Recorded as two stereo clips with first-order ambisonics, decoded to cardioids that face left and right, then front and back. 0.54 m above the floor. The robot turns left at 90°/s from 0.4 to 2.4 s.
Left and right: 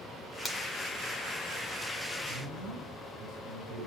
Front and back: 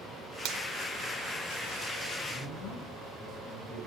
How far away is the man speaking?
About 9 m.